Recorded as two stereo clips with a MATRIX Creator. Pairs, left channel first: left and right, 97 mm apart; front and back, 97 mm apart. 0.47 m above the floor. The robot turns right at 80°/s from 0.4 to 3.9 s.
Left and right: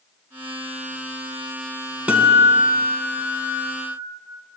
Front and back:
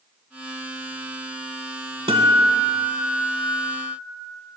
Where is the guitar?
165° right, 0.8 m; by 4.0 s 20° right, 0.8 m.